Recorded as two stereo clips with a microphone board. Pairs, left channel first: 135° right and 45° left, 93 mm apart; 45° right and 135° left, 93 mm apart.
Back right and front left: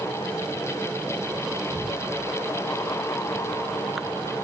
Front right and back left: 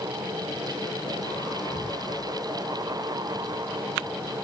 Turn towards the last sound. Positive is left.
turn(degrees=175)